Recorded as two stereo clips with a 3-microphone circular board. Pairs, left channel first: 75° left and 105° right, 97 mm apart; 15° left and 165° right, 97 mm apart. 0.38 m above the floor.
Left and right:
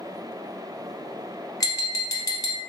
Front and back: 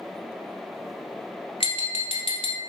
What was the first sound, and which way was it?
Tapping, 25° left.